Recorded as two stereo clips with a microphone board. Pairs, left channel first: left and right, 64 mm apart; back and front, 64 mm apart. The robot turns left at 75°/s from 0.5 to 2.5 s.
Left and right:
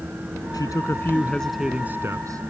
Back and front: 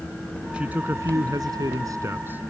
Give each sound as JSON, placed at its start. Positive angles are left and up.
{"t": 0.5, "sound": "a man speaking", "azimuth_deg": 75}